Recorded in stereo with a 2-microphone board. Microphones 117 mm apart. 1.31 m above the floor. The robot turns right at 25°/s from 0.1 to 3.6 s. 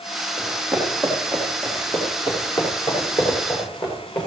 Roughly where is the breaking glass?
No breaking glass in this recording.